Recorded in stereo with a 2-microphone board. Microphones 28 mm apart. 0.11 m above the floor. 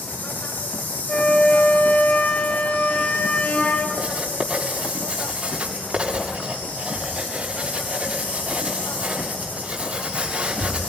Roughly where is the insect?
Left.